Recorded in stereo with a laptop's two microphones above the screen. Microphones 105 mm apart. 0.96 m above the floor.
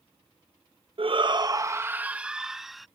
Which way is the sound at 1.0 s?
60° right (ahead or behind).